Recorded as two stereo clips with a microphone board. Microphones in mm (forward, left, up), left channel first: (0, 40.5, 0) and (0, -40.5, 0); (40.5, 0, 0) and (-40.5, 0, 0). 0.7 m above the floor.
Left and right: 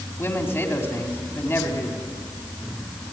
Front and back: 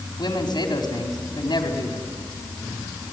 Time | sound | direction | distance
0.2 | a man speaking | 30° left | 4.5 m